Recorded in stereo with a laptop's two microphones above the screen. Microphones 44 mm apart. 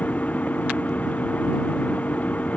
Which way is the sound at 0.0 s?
40° left (ahead or behind).